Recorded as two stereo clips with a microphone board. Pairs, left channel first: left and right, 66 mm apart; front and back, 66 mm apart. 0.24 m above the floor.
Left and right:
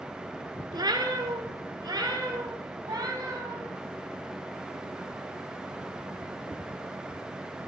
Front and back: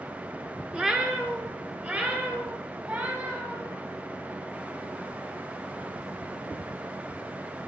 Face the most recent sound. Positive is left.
turn(degrees=-120)